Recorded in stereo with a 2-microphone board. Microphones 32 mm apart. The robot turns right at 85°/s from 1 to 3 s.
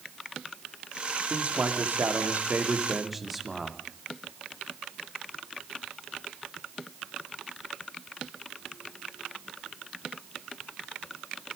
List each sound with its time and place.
1.3 s a man speaking: 150° right, 2.5 m; by 3.8 s 5° right, 2.5 m